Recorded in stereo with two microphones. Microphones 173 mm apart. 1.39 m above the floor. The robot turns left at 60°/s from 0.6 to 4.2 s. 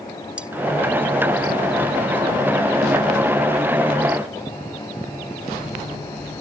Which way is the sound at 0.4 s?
5° right (ahead or behind).